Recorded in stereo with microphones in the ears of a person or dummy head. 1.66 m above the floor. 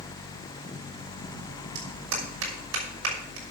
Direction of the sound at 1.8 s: 85° right.